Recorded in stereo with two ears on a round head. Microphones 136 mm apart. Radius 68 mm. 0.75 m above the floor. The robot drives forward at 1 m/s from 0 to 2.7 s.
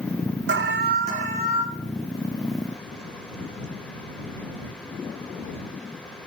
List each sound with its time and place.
0.5 s an alarm: 80° right, 0.8 m; by 1.6 s 35° right (ahead or behind), 1.3 m